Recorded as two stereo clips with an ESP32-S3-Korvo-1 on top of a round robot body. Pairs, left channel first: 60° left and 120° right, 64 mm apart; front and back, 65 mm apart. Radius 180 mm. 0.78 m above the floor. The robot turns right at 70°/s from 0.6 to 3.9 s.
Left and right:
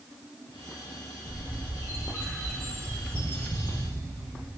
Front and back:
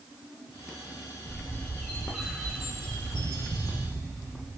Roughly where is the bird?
Ahead left.